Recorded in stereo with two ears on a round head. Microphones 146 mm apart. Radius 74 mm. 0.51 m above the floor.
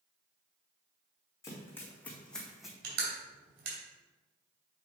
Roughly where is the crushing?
Right.